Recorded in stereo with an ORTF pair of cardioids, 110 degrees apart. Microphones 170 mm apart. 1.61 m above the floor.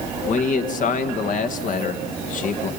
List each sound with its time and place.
0.3 s a man speaking: 50° left, 1.8 m